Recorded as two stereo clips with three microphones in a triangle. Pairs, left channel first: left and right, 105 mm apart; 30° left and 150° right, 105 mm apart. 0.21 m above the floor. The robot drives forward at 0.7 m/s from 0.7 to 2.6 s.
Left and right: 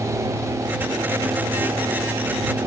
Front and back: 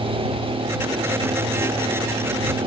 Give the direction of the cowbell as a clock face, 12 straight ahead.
No cowbell in this recording.